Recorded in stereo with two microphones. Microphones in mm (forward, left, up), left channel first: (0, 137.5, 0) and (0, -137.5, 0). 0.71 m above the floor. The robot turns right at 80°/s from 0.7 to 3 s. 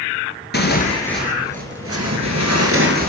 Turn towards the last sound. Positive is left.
turn(degrees=-35)